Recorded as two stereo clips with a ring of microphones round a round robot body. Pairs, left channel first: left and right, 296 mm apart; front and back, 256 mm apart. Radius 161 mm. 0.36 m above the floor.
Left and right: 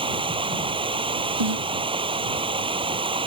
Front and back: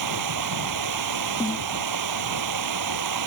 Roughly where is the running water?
Behind.